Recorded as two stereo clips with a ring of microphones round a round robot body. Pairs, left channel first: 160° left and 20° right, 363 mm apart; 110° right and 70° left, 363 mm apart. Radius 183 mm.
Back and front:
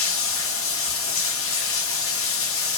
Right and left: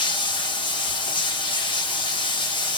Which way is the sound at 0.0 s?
Straight behind.